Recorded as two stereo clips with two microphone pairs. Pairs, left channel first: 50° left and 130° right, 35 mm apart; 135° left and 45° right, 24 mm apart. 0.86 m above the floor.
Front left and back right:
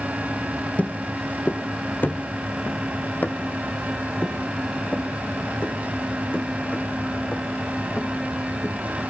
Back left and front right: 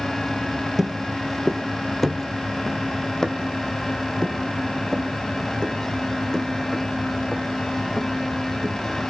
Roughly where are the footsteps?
Ahead left.